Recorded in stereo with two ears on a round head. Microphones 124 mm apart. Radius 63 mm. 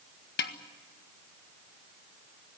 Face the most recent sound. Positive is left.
turn(degrees=80)